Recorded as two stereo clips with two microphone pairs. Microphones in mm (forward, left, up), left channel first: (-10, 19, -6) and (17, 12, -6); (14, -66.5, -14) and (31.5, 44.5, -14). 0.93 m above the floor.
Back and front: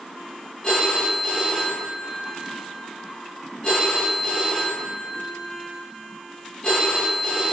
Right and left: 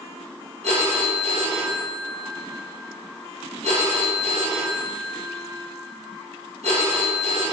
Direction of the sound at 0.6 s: 95° left.